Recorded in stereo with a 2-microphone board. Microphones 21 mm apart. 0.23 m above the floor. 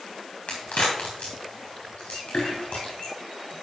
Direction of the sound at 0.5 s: 85° left.